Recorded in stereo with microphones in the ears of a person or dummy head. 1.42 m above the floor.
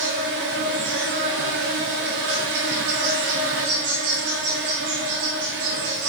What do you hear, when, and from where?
0.0 s an insect: 55° right (ahead or behind), 1.1 m